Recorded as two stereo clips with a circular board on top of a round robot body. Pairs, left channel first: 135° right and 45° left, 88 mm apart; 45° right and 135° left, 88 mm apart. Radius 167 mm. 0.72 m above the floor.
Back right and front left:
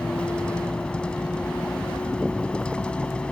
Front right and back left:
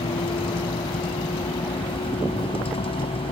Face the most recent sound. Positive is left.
turn(degrees=-55)